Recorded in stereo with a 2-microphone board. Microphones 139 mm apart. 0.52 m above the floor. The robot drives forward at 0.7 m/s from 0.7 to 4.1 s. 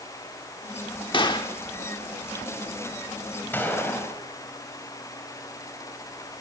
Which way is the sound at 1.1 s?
35° left (ahead or behind).